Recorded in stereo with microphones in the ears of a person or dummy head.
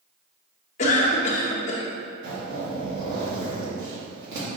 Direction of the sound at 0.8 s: 40° left (ahead or behind).